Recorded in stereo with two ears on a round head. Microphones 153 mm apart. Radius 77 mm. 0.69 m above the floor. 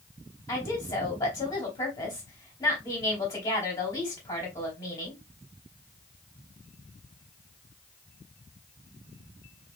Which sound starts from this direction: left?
A woman speaking, at 0.5 s.